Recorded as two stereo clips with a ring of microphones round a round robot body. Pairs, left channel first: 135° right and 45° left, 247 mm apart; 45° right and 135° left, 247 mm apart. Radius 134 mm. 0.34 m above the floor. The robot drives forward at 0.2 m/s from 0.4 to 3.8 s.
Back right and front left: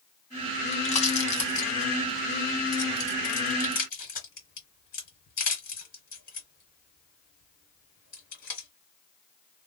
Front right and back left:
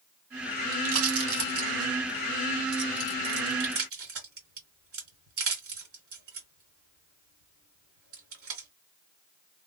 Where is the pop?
160° left, 1.6 m; by 8.7 s 165° left, 2 m.